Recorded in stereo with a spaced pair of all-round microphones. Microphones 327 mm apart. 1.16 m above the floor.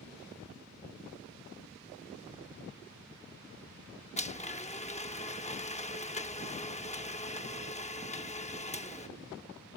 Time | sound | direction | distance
4.2 | a blender | 20° left (ahead or behind) | ?